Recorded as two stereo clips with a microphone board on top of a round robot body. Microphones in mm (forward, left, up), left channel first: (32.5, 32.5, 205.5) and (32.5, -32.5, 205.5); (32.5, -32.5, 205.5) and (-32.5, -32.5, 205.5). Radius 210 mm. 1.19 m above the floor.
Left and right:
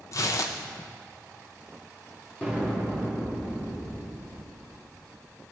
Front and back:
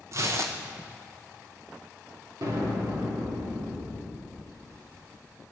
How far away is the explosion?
About 4 m.